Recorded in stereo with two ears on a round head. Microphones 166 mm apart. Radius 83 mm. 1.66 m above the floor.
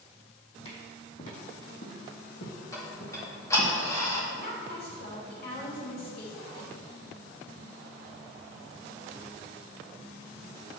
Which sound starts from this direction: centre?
Ticking, at 2.7 s.